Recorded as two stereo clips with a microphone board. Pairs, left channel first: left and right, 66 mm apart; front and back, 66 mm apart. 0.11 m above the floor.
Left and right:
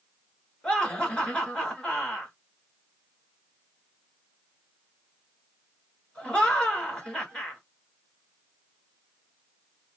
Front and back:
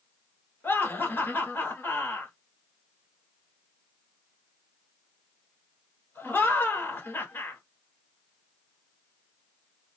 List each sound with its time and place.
0.6 s laughter: 20° left, 1.4 m